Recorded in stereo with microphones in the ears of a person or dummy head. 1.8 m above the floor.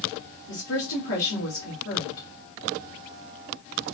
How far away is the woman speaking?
About 1.4 m.